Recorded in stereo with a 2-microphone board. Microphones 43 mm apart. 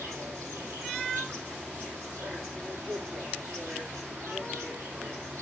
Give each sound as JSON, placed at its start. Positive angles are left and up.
{"t": 0.0, "sound": "an insect", "side_deg": -90, "distance_m": 3.5}